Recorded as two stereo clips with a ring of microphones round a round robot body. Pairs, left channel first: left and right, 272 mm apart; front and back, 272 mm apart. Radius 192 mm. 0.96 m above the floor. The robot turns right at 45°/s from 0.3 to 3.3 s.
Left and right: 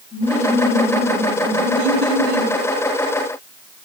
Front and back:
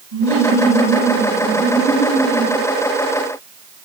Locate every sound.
0.1 s laughter: 175° right, 7 m; by 2.5 s 75° right, 7 m